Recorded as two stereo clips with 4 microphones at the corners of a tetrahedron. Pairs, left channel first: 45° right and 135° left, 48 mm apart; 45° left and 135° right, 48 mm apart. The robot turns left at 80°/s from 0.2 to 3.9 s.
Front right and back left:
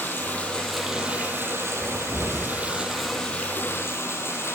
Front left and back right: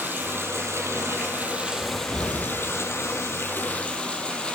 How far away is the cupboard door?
About 2.5 m.